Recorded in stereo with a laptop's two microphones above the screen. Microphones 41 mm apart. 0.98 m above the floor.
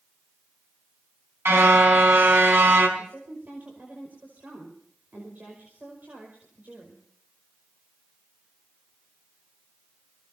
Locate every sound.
1.4 s a car horn: 75° right (ahead or behind), 4.5 m
3.0 s a woman speaking: 50° right (ahead or behind), 5 m